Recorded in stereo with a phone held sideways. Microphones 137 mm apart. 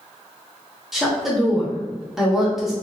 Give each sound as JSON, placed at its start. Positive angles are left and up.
{"t": 0.9, "sound": "a woman speaking", "side_deg": -5, "distance_m": 0.6}